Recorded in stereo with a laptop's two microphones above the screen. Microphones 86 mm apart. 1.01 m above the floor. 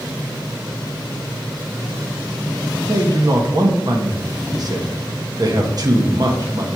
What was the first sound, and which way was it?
A man speaking, 50° right (ahead or behind).